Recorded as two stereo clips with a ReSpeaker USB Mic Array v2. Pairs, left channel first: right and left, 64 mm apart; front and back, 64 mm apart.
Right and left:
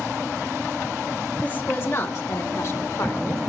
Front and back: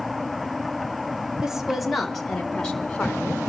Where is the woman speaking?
120° right, 1.2 m; by 3.4 s 75° right, 2.5 m.